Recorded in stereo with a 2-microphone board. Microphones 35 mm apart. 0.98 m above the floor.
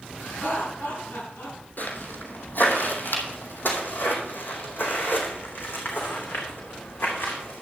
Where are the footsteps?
60° left (ahead or behind), 2.5 m; by 7.6 s 70° left (ahead or behind), 4.5 m.